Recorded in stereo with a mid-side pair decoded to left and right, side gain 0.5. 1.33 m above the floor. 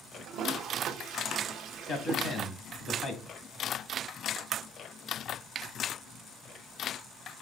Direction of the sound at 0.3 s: 70° right.